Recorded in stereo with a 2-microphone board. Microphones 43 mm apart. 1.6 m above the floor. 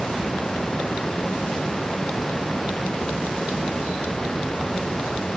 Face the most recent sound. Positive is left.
No sound to turn to.